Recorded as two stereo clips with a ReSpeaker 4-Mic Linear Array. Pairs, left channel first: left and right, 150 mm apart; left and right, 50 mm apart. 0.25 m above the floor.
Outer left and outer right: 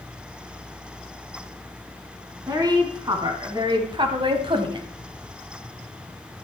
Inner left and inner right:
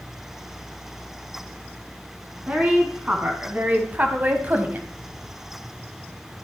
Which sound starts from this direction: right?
A woman speaking, at 2.5 s.